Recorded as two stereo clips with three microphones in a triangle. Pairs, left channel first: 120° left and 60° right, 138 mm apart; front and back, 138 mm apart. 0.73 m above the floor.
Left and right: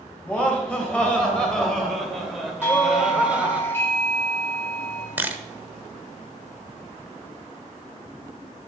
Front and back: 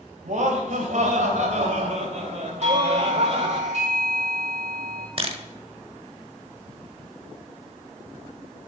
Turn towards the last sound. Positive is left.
turn(degrees=-135)